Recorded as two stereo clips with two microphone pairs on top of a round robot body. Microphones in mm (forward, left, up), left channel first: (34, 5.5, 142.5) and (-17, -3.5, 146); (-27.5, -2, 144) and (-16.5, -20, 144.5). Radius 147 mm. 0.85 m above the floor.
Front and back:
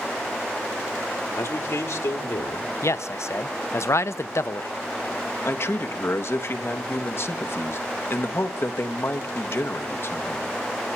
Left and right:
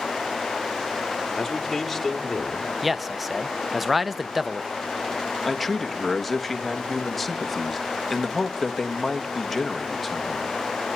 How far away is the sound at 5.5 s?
About 1.7 m.